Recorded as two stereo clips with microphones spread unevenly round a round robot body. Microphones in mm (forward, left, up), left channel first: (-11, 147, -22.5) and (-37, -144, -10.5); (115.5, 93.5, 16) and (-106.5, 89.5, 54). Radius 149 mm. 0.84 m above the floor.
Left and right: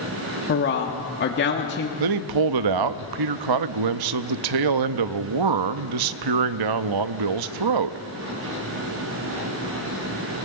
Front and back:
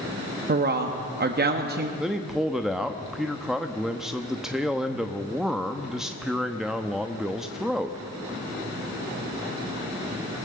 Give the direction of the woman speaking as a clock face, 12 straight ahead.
8 o'clock.